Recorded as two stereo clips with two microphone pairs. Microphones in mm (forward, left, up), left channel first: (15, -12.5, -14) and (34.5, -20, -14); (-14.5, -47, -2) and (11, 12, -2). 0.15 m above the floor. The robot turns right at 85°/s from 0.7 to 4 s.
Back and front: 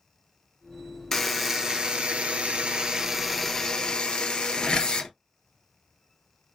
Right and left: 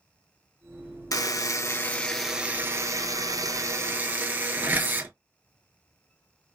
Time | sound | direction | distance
1.1 | a buzzer | 120° right | 0.6 m